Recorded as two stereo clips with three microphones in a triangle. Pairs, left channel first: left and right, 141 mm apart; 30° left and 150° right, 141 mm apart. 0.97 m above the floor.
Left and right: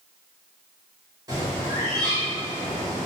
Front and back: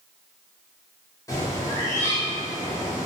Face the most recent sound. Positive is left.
turn(degrees=-30)